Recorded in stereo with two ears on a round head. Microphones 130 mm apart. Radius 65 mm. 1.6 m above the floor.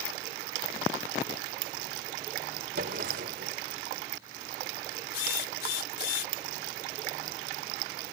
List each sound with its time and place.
2.8 s a drawer: 65° right (ahead or behind)
5.1 s a drill: 70° left (ahead or behind)